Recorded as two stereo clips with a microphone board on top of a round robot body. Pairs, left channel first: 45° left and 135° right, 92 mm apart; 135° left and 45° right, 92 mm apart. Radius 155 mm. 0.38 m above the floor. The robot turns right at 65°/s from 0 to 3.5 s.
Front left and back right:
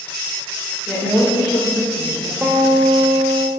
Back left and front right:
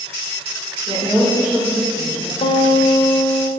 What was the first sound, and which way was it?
A woman speaking, 15° right.